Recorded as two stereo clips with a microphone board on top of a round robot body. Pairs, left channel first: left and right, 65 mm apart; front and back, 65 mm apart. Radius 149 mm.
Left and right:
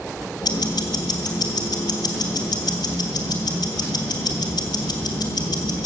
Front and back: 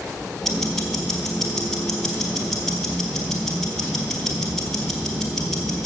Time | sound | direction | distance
0.4 | ticking | 85° left | 1.4 m